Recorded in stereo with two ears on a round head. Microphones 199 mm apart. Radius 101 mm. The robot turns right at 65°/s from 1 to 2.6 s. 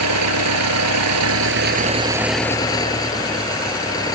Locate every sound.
0.0 s an engine running: 85° right; by 4.2 s 15° left